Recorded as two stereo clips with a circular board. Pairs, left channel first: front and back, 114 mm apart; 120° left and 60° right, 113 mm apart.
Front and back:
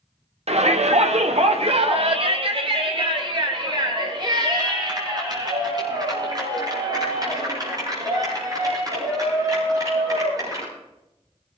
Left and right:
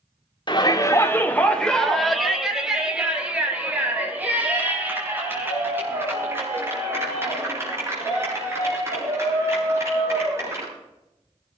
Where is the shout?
165° left, 1.5 m; by 10.7 s 125° right, 12 m.